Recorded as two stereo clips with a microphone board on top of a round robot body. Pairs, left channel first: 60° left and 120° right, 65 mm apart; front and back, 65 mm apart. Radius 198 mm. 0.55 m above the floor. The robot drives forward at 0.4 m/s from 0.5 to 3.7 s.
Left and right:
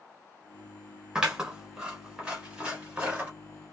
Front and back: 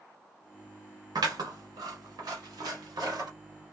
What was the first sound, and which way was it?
Scissors, 165° left.